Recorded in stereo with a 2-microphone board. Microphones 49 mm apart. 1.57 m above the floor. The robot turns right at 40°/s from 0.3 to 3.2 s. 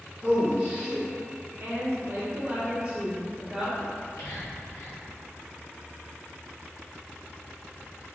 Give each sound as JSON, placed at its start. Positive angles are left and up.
{"t": 0.2, "sound": "a man speaking", "side_deg": -25, "distance_m": 1.6}
{"t": 1.6, "sound": "a woman speaking", "azimuth_deg": -70, "distance_m": 0.9}
{"t": 3.9, "sound": "whispering", "side_deg": 80, "distance_m": 1.2}